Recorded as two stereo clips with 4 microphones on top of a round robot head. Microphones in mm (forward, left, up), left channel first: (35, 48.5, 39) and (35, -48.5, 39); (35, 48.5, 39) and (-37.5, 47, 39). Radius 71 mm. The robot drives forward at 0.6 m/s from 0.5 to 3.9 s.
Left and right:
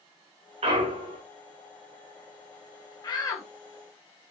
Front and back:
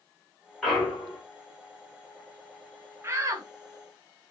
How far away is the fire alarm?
I don't hear a fire alarm.